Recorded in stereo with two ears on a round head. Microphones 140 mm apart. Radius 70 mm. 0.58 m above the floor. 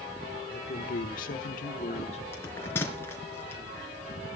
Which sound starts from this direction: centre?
A bell, at 2.3 s.